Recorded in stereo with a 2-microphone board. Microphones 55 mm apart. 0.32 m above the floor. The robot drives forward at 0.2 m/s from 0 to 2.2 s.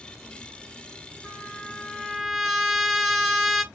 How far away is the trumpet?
About 0.7 m.